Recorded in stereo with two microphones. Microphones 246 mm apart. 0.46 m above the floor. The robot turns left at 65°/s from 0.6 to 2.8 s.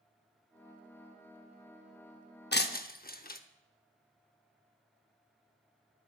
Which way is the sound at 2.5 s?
45° left (ahead or behind).